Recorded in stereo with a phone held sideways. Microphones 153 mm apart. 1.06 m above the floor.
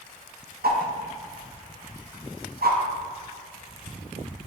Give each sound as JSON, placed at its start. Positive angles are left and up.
{"t": 0.6, "sound": "a whoosh", "side_deg": -75, "distance_m": 0.6}